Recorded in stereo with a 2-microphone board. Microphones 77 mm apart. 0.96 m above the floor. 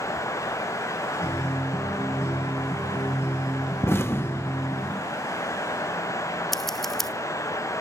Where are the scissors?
5° left (ahead or behind), 0.8 m.